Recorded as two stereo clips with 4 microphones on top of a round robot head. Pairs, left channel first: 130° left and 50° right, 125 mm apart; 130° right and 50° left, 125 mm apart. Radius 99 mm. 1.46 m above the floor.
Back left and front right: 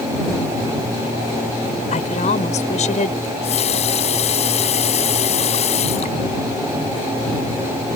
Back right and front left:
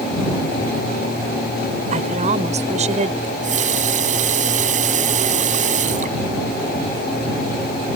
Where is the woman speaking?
90° left.